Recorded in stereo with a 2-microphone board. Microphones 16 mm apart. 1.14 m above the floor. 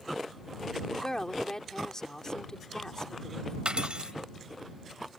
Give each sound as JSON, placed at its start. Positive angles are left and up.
{"t": 0.9, "sound": "a woman speaking", "side_deg": 35}
{"t": 3.6, "sound": "cutlery clinking", "side_deg": -65}